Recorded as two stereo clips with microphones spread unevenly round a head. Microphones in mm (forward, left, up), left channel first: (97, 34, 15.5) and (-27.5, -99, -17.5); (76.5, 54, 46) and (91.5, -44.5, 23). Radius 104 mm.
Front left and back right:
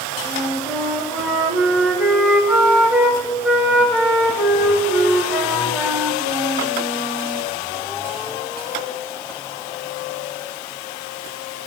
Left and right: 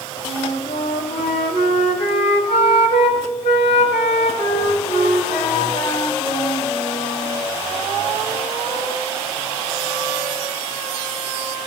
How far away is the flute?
About 1.4 m.